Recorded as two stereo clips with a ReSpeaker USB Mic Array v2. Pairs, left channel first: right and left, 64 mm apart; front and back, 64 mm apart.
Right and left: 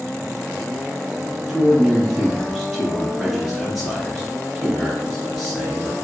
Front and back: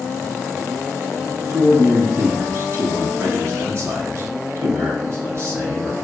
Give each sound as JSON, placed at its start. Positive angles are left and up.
{"t": 1.5, "sound": "a man speaking", "azimuth_deg": 180, "distance_m": 1.6}